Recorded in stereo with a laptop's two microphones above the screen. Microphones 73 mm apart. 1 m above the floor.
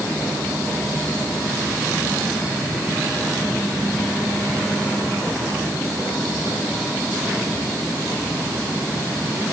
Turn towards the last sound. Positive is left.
No sound to turn to.